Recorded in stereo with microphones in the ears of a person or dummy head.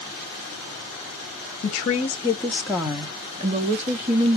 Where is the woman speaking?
50° left (ahead or behind), 0.8 m; by 4.4 s 45° right (ahead or behind), 1.5 m.